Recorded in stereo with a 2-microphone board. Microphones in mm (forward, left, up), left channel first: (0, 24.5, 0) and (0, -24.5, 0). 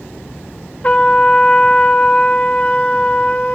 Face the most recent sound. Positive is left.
turn(degrees=30)  # may be behind; listen again after turning